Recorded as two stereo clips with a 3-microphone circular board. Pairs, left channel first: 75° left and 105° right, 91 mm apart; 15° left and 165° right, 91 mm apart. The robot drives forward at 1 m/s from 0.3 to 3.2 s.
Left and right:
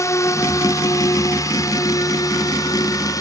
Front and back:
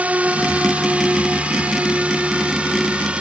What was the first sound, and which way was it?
A drone, 125° left.